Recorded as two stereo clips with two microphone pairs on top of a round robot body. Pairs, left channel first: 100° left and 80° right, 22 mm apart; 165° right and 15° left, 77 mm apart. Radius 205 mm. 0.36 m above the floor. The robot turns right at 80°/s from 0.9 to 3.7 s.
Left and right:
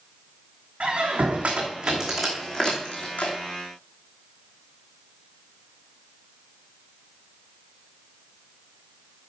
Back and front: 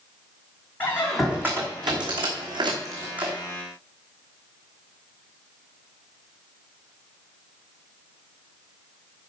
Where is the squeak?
100° right, 2.5 m; by 3.4 s 100° left, 2.5 m.